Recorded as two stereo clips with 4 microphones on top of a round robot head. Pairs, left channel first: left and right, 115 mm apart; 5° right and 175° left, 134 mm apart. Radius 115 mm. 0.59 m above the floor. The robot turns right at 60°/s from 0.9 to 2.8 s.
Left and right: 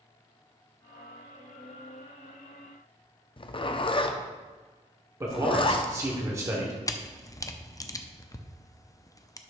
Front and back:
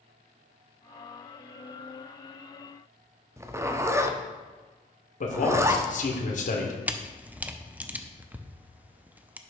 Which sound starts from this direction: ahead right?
A man speaking, at 5.2 s.